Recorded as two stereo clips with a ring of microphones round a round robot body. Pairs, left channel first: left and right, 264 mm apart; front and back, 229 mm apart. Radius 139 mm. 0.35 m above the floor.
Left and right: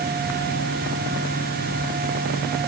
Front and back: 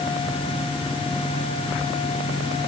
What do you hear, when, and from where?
Only background noise.